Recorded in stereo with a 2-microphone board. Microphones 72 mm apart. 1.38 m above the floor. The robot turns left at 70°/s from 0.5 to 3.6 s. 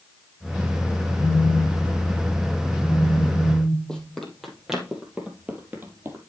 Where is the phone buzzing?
65° right, 3 m; by 4.1 s 125° left, 3 m.